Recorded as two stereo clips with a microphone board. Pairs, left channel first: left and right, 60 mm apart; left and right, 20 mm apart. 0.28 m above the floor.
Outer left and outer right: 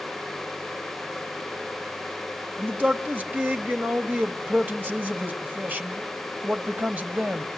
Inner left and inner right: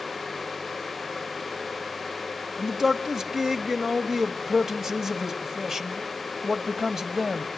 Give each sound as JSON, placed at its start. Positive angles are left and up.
{"t": 2.6, "sound": "a man speaking", "side_deg": -30, "distance_m": 1.5}